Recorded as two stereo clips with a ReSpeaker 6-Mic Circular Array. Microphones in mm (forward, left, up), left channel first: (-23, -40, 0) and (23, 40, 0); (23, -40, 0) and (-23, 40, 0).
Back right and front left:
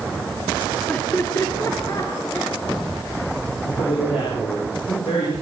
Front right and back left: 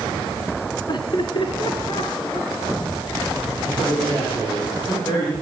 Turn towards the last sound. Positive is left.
turn(degrees=-120)